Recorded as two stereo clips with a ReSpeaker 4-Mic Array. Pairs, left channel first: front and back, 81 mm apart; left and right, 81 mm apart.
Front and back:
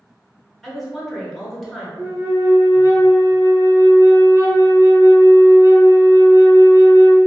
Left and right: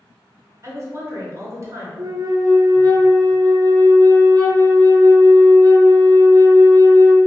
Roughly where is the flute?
Behind right.